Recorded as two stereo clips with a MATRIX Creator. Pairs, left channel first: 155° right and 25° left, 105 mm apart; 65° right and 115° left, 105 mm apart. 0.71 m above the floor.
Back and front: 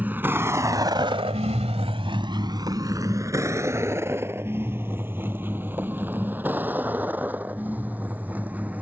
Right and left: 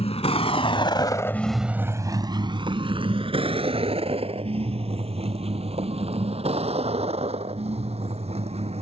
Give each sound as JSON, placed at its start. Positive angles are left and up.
{"t": 0.0, "sound": "a vehicle", "azimuth_deg": -50}